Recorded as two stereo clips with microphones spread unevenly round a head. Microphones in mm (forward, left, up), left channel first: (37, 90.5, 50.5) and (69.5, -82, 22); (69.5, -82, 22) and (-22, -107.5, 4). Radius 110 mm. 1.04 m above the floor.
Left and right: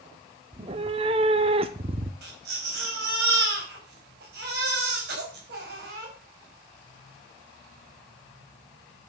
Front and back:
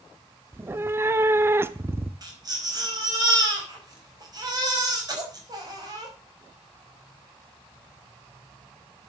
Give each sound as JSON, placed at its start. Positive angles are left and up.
{"t": 0.5, "sound": "a cat meowing", "azimuth_deg": -110, "distance_m": 0.6}
{"t": 2.2, "sound": "a baby crying", "azimuth_deg": -120, "distance_m": 5.0}